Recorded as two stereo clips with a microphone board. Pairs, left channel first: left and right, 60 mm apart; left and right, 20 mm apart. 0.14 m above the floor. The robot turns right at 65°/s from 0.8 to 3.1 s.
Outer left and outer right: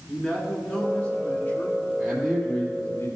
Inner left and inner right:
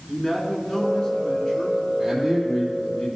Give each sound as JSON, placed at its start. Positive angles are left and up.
{"t": 0.1, "sound": "a man speaking", "azimuth_deg": 15, "distance_m": 2.0}
{"t": 2.0, "sound": "a man speaking", "azimuth_deg": -5, "distance_m": 2.5}